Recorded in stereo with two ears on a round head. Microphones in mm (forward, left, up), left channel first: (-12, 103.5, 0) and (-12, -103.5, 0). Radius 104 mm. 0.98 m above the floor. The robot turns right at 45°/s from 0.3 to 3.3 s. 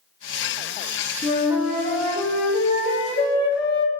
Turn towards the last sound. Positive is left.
turn(degrees=60)